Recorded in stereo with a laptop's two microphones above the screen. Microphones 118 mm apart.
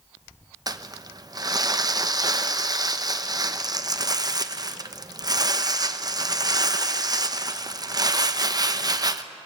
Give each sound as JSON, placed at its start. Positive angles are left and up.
{"t": 0.7, "sound": "crumpling", "side_deg": -35, "distance_m": 0.6}